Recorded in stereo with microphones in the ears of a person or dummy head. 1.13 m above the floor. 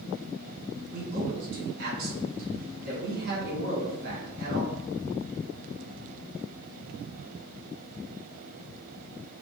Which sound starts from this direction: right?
A man speaking, at 0.9 s.